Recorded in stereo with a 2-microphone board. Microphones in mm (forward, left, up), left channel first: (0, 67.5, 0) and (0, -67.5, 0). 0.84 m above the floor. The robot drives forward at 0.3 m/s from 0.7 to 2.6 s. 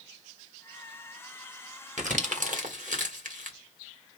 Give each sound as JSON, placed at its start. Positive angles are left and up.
{"t": 2.0, "sound": "crumpling", "side_deg": -65, "distance_m": 1.4}